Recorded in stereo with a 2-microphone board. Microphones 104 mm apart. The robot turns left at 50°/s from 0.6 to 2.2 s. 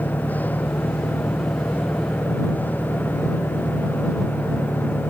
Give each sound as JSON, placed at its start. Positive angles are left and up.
{"t": 0.0, "sound": "an engine running", "azimuth_deg": 50}